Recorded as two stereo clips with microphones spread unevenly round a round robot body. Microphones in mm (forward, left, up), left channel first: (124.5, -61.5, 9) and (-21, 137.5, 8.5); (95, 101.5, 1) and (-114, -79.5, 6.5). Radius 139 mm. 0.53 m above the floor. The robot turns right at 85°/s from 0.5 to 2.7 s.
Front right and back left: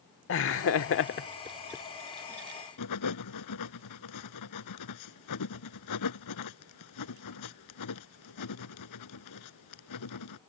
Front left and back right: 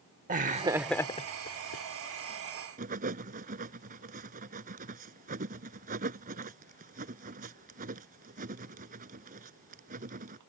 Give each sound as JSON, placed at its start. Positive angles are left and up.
{"t": 0.3, "sound": "laughter", "azimuth_deg": -80}
{"t": 2.8, "sound": "writing", "azimuth_deg": -75}